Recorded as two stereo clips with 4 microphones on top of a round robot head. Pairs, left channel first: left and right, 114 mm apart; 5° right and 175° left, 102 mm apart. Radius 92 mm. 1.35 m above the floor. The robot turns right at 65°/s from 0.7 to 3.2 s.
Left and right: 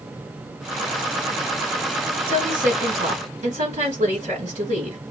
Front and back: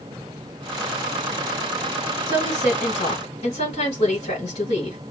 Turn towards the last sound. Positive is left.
turn(degrees=-55)